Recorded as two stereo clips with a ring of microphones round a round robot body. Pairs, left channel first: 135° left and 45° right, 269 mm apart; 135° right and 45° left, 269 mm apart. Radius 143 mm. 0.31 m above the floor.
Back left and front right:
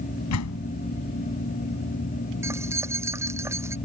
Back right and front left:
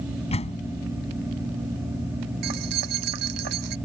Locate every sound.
0.3 s a door slam: 160° left
2.4 s keys jangling: 35° left